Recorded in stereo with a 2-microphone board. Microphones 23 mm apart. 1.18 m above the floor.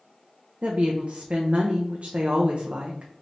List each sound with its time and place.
0.6 s a woman speaking: 65° right (ahead or behind), 0.6 m